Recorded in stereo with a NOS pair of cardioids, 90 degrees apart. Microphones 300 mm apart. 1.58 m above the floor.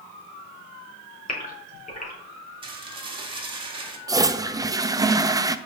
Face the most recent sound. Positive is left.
turn(degrees=-10)